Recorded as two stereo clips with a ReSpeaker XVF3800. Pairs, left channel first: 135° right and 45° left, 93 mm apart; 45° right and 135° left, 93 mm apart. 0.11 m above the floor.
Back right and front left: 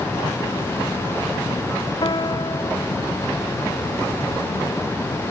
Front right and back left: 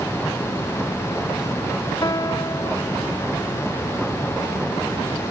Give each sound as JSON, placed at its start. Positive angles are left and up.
{"t": 2.0, "sound": "a piano", "azimuth_deg": -95}